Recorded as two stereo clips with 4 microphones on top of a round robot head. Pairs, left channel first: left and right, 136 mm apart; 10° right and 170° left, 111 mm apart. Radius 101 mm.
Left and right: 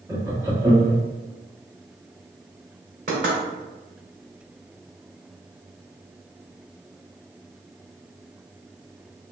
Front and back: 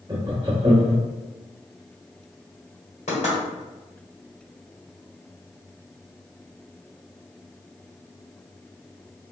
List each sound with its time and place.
0.1 s laughter: 155° right, 1.0 m
3.1 s knocking: 55° right, 1.9 m